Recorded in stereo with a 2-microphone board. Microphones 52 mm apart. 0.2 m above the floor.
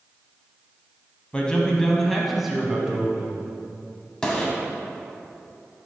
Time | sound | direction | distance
1.3 | a man speaking | 20° left (ahead or behind) | 1.0 m
4.2 | a gunshot | 15° left (ahead or behind) | 1.3 m